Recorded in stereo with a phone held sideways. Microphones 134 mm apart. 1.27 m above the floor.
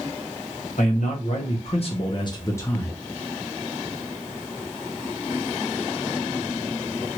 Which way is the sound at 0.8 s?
70° left (ahead or behind).